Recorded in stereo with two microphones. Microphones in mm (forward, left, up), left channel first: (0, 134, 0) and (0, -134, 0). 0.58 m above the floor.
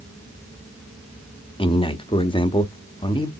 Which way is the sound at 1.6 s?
20° left (ahead or behind).